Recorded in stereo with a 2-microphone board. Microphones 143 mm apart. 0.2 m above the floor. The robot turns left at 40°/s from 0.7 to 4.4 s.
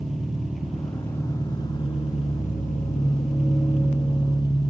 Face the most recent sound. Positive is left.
turn(degrees=35)